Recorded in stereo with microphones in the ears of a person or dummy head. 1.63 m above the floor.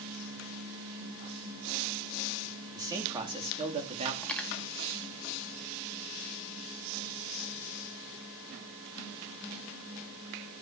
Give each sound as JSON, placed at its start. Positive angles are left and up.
{"t": 2.8, "sound": "a man speaking", "side_deg": -20, "distance_m": 3.5}
{"t": 4.2, "sound": "cutlery clinking", "side_deg": 5, "distance_m": 2.0}